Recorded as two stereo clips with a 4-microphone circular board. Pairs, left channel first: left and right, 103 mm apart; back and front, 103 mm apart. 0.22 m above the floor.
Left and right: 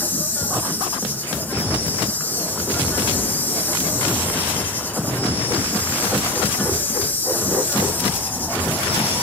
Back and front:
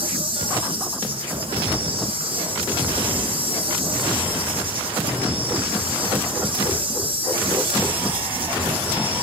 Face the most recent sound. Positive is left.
turn(degrees=20)